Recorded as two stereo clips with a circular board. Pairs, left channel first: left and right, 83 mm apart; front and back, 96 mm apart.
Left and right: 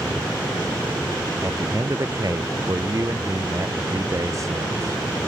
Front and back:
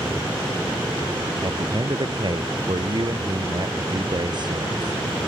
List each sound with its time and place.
1.4 s a man speaking: 140° right